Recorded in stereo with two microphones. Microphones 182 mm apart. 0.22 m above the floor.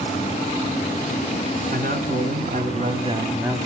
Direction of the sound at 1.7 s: 55° right (ahead or behind).